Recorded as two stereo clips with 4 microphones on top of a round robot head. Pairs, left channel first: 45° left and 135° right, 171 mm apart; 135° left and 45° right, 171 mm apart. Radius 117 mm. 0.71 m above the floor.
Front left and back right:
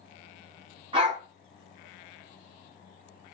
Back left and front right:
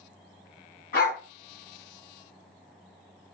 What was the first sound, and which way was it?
A dog barking, 165° left.